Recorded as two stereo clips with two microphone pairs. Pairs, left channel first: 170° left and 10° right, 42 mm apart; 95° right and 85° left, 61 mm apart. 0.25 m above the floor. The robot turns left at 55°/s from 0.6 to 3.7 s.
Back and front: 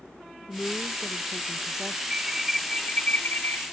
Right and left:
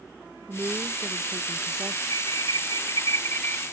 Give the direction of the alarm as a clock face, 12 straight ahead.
3 o'clock.